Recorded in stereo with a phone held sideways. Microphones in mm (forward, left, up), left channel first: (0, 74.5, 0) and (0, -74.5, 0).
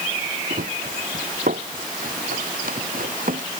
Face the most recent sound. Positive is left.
turn(degrees=-75)  # may be behind; listen again after turning